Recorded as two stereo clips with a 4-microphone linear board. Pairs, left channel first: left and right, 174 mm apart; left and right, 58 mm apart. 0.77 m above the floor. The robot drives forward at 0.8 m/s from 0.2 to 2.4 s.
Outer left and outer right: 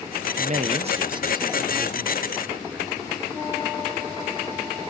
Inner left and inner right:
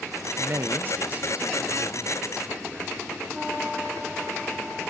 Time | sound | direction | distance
0.4 | a man speaking | 50° right (ahead or behind) | 0.6 m